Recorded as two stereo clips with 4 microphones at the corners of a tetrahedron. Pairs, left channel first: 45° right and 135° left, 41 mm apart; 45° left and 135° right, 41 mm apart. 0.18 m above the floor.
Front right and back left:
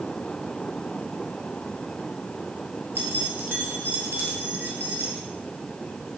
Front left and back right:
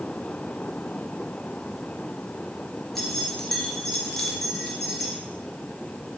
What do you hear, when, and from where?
3.0 s keys jangling: 130° left, 2 m